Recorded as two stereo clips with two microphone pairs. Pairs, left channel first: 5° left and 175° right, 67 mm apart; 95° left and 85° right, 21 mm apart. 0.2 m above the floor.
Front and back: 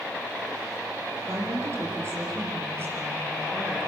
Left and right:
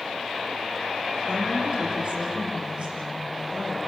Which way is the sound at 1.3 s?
125° right.